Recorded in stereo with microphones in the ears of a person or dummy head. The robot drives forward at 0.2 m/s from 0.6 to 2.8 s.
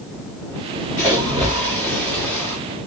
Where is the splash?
10° left (ahead or behind), 1.0 m.